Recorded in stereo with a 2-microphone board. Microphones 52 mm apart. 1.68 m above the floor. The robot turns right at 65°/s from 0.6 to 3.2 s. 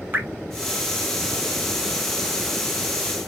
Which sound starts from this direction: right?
Dripping, at 0.1 s.